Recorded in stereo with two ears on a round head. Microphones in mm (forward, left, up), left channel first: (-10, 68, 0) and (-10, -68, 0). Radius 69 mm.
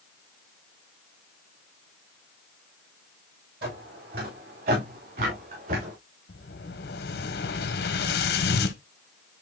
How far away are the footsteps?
About 8 m.